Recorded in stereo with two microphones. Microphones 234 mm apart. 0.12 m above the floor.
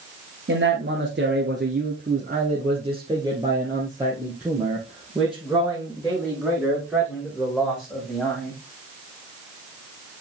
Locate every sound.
0.5 s a man speaking: 55° right (ahead or behind), 1.8 m; by 8.6 s 10° left (ahead or behind), 6 m